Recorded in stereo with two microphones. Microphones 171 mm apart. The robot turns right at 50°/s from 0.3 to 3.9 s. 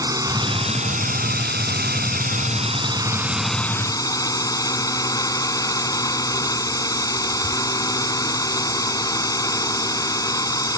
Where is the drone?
160° right; by 10.8 s 20° left.